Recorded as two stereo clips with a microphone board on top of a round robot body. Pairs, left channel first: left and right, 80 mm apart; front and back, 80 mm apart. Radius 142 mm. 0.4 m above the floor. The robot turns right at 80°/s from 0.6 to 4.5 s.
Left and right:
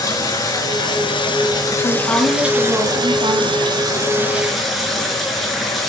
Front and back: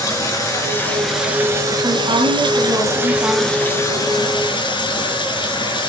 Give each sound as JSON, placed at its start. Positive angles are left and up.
{"t": 0.0, "sound": "running water", "azimuth_deg": 50, "distance_m": 4.0}
{"t": 1.8, "sound": "a woman speaking", "azimuth_deg": 135, "distance_m": 4.0}